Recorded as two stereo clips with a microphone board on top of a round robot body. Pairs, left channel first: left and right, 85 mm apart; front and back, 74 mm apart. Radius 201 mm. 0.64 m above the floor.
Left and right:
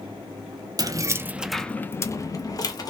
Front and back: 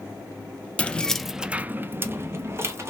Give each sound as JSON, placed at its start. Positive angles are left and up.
{"t": 0.8, "sound": "keys jangling", "azimuth_deg": -70, "distance_m": 0.7}